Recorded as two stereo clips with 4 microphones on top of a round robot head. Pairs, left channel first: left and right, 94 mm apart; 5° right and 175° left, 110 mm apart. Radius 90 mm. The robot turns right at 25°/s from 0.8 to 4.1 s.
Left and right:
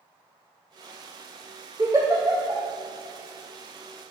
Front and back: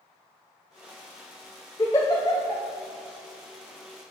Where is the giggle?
60° right, 0.5 m; by 2.6 s 35° right, 0.5 m.